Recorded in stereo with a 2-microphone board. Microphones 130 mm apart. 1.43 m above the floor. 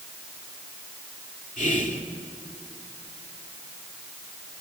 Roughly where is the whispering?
Left.